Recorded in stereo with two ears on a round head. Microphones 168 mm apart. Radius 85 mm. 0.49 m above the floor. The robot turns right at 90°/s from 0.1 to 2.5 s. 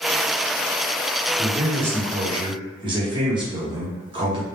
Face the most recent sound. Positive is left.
turn(degrees=-55)